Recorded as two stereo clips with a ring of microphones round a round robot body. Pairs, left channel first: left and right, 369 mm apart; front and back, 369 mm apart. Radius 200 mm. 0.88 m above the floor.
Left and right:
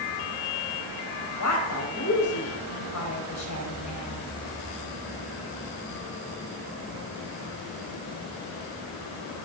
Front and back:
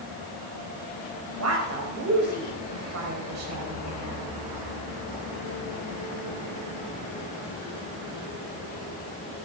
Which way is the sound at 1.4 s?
135° left.